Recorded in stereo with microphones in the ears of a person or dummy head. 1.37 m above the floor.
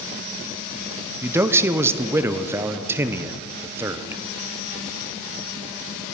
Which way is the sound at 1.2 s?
15° right (ahead or behind).